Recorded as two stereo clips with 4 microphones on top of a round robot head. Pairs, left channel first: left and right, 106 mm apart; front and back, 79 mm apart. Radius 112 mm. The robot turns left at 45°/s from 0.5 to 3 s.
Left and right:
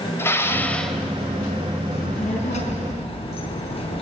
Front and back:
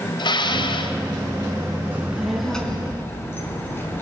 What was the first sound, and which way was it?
Dishes clattering, 20° left.